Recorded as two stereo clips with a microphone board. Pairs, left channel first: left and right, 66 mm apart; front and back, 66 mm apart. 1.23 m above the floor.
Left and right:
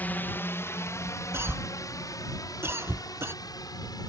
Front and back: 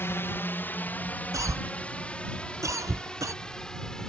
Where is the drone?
35° left; by 4.1 s 80° left.